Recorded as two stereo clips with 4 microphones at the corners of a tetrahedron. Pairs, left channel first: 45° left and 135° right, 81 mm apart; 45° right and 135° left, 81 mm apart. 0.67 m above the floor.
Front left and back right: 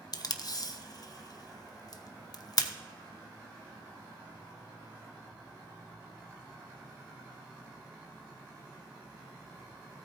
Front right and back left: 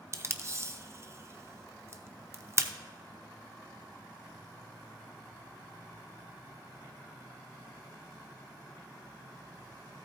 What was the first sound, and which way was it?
Tape being pulled, 85° left.